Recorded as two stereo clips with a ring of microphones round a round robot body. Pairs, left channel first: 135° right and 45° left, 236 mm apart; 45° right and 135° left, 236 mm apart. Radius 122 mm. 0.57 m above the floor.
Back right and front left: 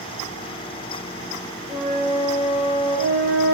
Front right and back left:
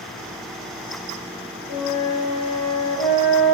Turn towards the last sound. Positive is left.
turn(degrees=-60)